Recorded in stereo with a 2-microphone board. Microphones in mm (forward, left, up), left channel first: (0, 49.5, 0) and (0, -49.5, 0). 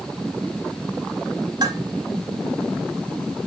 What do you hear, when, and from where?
1.6 s dishes clattering: 45° right (ahead or behind), 4.5 m